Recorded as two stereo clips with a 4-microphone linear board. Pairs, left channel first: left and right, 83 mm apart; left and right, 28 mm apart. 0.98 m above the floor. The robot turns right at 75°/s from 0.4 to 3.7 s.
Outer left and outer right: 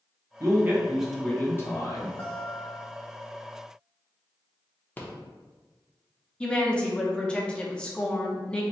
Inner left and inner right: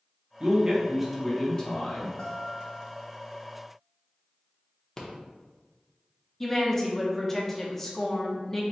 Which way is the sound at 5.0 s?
20° left (ahead or behind).